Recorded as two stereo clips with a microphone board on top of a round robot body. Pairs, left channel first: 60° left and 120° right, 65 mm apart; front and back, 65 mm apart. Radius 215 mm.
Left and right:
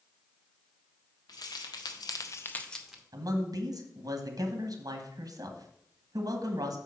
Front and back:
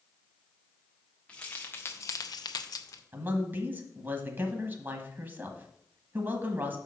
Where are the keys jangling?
75° left, 1.5 m; by 3.0 s 35° right, 1.1 m.